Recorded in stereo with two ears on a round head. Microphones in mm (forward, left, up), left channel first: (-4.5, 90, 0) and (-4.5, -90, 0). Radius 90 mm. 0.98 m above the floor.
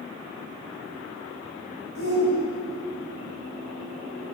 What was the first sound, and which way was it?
A shout, 70° left (ahead or behind).